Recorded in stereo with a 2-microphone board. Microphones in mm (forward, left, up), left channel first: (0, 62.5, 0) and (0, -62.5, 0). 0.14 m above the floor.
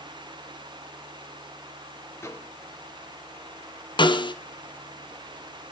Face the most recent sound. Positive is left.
turn(degrees=40)  # may be behind; listen again after turning